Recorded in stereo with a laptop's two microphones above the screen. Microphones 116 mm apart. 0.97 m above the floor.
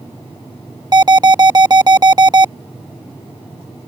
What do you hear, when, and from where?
0.9 s an alarm: 35° right (ahead or behind)